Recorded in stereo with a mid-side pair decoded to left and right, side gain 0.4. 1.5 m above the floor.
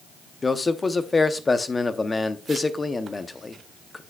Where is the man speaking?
30° left, 0.8 m.